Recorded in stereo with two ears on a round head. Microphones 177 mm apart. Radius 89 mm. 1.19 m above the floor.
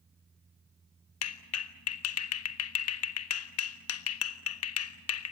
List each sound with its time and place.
1.2 s a clap: 75° left (ahead or behind), 1.4 m